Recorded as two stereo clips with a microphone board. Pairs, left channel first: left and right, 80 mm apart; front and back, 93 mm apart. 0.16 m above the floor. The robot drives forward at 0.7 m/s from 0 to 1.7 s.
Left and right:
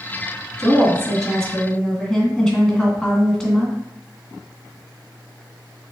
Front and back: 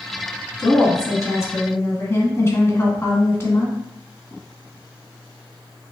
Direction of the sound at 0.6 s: 5° left.